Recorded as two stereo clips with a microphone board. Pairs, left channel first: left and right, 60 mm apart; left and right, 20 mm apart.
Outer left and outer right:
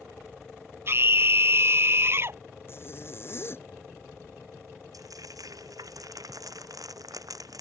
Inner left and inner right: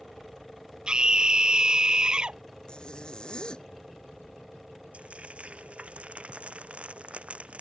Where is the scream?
45° right (ahead or behind).